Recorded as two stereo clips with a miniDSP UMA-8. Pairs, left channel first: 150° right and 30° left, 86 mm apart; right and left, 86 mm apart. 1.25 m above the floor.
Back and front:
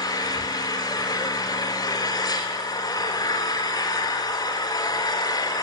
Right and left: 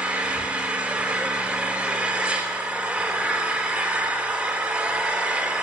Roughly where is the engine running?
Behind.